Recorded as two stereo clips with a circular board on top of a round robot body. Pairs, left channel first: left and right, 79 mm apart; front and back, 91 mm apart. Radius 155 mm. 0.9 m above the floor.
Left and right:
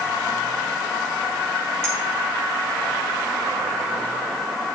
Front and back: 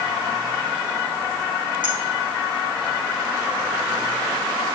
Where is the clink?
150° right, 3.5 m.